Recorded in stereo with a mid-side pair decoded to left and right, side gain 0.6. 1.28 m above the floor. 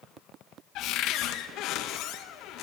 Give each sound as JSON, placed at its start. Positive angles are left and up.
{"t": 0.8, "sound": "a cupboard door", "azimuth_deg": 65, "distance_m": 1.0}